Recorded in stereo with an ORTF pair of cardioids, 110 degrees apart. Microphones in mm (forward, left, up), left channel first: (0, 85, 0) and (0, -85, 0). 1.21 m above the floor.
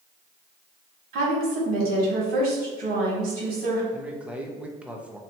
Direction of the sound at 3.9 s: 10° right.